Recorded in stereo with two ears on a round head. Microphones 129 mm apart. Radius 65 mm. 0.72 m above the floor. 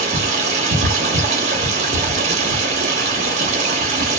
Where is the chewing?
I don't hear chewing.